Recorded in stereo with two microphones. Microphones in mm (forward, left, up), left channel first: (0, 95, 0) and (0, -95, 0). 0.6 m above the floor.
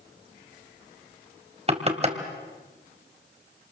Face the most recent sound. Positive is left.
turn(degrees=-35)  # may be behind; listen again after turning